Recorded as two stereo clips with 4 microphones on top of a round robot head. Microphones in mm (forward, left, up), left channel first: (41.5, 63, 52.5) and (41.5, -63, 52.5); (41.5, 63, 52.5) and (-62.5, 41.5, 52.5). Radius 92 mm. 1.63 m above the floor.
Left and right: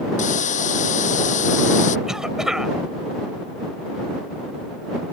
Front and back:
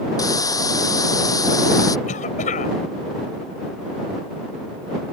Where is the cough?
5° right.